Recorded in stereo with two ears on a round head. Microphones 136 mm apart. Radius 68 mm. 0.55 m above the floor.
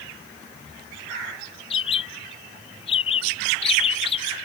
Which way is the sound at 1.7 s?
40° left (ahead or behind).